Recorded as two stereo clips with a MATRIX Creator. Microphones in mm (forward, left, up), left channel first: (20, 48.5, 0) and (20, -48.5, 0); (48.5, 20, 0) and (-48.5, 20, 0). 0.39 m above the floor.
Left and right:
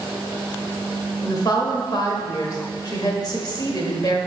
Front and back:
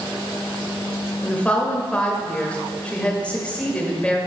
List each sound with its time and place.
1.2 s a woman speaking: 75° left, 1.1 m